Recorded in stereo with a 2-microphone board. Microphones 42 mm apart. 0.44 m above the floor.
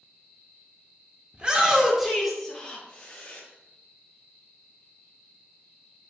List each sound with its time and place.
1.3 s a shout: 25° right (ahead or behind), 0.8 m; by 3.4 s 30° left (ahead or behind), 1.1 m